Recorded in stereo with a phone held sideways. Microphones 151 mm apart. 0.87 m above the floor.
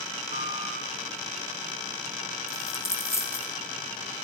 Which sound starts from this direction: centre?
A dropped coin, at 2.5 s.